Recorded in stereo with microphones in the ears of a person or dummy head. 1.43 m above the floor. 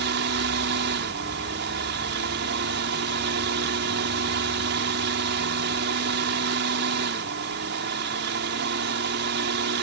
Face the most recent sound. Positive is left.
turn(degrees=-60)  # may be behind; listen again after turning